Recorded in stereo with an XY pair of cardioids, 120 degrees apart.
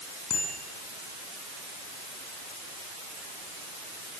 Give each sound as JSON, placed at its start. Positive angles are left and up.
{"t": 0.3, "sound": "a bicycle bell", "azimuth_deg": 55, "distance_m": 9.0}